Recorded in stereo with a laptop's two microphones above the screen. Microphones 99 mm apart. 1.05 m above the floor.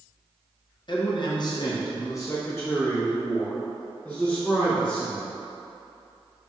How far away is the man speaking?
About 0.8 m.